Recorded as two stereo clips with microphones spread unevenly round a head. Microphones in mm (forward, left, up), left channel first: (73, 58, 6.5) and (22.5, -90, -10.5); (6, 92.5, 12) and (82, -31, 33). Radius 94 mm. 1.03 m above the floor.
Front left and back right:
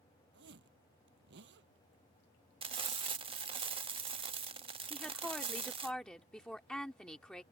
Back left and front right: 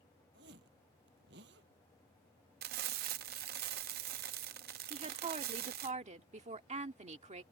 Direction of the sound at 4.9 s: 15° right.